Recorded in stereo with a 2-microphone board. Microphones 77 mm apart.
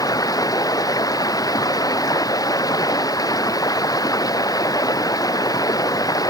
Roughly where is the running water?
Left.